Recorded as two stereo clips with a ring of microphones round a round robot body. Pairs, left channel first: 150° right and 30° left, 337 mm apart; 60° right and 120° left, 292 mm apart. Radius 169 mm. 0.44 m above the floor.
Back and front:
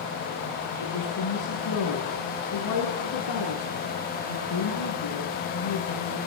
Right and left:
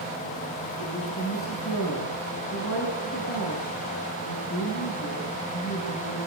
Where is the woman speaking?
115° right, 6.5 m.